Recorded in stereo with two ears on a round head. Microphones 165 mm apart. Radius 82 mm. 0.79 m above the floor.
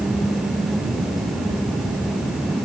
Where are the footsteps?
No footsteps in this recording.